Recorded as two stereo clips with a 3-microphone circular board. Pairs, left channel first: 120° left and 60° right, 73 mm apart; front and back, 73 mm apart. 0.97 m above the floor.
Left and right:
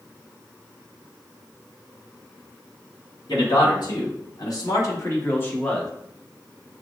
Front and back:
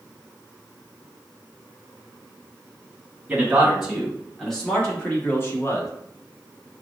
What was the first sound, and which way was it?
A man speaking, 100° left.